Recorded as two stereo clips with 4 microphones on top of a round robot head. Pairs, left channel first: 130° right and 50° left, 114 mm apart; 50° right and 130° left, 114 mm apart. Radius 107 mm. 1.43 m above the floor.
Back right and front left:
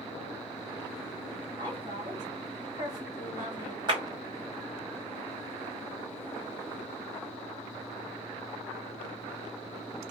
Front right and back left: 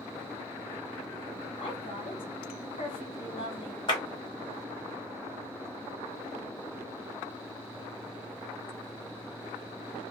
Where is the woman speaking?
10° right, 1.7 m.